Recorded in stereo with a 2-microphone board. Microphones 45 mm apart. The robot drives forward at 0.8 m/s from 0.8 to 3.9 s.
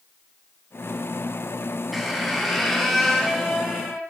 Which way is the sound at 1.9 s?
Centre (ahead or behind).